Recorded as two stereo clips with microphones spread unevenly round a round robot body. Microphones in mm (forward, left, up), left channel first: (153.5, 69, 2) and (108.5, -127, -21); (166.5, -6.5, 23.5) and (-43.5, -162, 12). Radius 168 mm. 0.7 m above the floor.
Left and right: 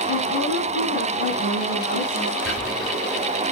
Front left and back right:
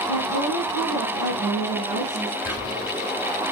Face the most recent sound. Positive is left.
turn(degrees=115)